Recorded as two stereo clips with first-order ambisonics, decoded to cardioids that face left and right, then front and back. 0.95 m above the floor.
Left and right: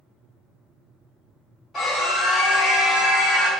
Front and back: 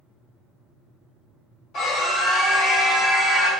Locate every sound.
1.7 s a scream: 25° left, 1.3 m; by 3.5 s 110° left, 1.3 m